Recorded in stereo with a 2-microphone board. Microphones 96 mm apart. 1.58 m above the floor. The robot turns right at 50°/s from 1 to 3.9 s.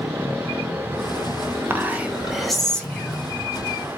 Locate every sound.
1.7 s whispering: 40° right, 0.5 m; by 3.2 s 40° left, 0.5 m